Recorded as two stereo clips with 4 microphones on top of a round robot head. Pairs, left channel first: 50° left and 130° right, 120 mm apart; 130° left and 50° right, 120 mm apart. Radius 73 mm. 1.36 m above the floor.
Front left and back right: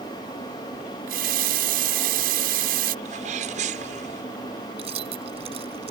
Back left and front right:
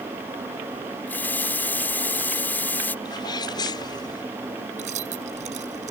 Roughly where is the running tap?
Behind right.